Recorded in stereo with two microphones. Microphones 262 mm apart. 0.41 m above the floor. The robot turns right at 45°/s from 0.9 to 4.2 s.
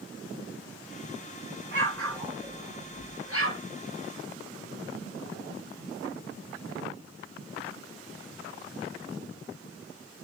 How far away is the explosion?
About 7.5 m.